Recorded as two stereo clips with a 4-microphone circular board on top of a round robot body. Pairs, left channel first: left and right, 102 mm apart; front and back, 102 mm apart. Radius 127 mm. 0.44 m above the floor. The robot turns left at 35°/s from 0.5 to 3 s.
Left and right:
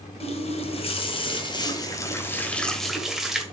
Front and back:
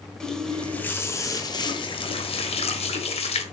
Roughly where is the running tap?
Left.